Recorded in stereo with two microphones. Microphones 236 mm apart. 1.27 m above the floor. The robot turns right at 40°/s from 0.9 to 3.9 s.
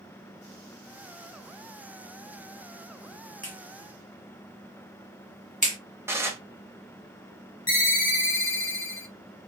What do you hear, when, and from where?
3.4 s a clap: 50° left (ahead or behind), 1.2 m; by 5.8 s 30° left (ahead or behind), 1.2 m
6.1 s dishes clattering: 10° right (ahead or behind), 0.6 m
7.7 s a ringtone: 60° left (ahead or behind), 1.4 m